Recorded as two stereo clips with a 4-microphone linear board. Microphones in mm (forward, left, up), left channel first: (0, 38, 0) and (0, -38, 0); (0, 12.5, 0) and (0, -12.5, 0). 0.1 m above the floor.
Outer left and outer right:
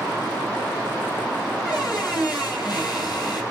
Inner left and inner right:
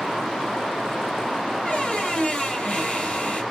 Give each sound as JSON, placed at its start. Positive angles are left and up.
{"t": 1.6, "sound": "a squeak", "side_deg": 65, "distance_m": 1.8}